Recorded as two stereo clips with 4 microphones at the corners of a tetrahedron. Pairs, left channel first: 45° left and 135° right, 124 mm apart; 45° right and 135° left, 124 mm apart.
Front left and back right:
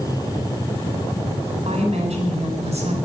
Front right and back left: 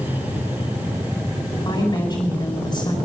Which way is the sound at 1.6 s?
105° right.